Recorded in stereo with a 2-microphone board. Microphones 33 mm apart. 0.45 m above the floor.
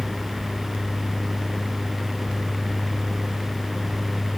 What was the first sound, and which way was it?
Only background noise.